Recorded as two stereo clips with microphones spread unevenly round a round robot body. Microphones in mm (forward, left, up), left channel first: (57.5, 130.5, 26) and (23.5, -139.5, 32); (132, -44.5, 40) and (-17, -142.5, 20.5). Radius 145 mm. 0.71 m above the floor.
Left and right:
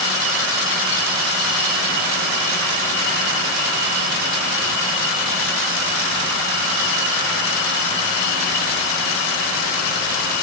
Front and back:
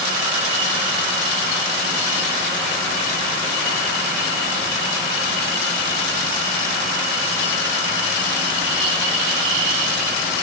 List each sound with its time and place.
Only background noise.